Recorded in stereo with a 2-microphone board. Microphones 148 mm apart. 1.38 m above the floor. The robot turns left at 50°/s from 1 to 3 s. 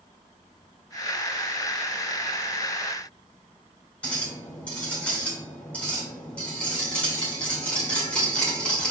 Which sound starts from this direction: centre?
A clink, at 4.0 s.